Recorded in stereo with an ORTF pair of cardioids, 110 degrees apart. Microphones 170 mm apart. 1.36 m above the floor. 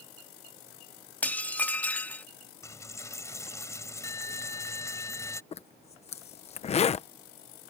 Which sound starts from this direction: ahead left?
A zipper, at 5.5 s.